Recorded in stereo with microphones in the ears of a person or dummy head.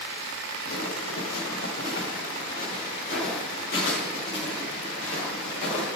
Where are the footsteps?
55° left (ahead or behind), 3.5 m; by 5.9 s 40° left (ahead or behind), 6 m.